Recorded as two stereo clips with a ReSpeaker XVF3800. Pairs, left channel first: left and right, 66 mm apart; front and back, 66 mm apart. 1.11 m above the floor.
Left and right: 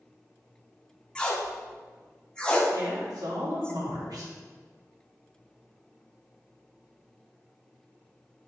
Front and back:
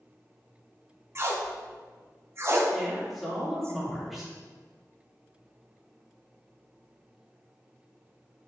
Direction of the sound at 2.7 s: 90° right.